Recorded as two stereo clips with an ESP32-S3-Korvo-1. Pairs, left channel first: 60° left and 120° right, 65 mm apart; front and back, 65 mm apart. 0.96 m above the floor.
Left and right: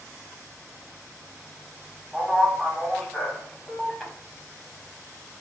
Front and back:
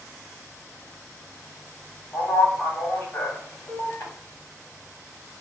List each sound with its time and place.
2.1 s a man speaking: 40° right, 1.3 m